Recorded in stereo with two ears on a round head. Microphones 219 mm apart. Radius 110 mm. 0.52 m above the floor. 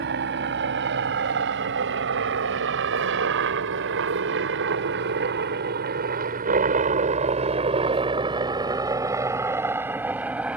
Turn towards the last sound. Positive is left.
turn(degrees=-5)  # may be behind; listen again after turning